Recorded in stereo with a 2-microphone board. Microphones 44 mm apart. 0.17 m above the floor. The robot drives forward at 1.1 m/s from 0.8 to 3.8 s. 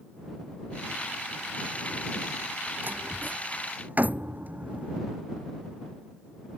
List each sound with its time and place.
2.8 s a door slam: 45° right (ahead or behind); by 5.0 s 40° right (ahead or behind)